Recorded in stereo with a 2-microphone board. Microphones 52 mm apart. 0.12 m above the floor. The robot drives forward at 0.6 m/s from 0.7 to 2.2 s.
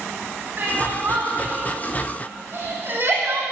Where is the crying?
40° right (ahead or behind), 4.5 m; by 3.4 s 50° right (ahead or behind), 4 m.